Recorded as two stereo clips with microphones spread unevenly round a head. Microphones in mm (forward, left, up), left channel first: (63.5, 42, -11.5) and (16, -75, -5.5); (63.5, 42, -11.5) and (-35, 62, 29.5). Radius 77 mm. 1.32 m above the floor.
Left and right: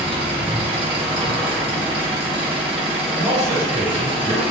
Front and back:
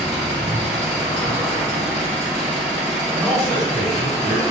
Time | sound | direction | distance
0.0 | an engine running | 65° right | 1.0 m
3.1 | a man speaking | 120° right | 1.9 m